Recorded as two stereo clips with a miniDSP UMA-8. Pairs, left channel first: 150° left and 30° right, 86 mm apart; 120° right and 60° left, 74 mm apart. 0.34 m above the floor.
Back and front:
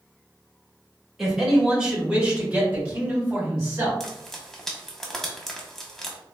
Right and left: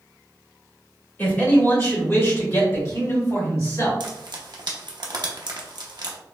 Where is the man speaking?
115° right, 1.3 m; by 3.9 s 90° right, 2.5 m.